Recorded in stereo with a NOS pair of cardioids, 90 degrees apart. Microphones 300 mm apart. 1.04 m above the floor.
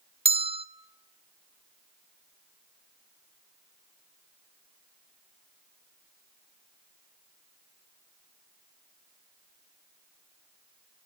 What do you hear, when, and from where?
0.2 s a bell: 20° right, 0.7 m